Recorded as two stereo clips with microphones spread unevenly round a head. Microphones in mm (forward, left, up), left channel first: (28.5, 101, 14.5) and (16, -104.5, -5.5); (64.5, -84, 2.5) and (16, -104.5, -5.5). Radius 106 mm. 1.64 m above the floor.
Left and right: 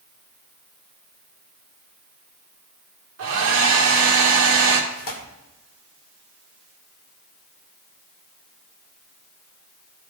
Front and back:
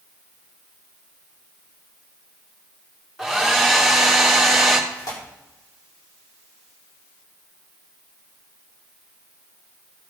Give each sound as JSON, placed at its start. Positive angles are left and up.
{"t": 3.2, "sound": "a hair dryer", "azimuth_deg": -70, "distance_m": 2.5}
{"t": 4.9, "sound": "tearing paper", "azimuth_deg": 40, "distance_m": 2.5}